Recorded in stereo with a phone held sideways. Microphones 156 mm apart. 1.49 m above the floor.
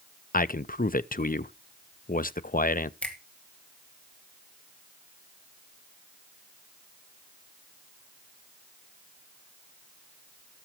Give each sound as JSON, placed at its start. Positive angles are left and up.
{"t": 0.3, "sound": "a man speaking", "side_deg": 60, "distance_m": 0.5}
{"t": 3.0, "sound": "a finger snap", "side_deg": 5, "distance_m": 2.5}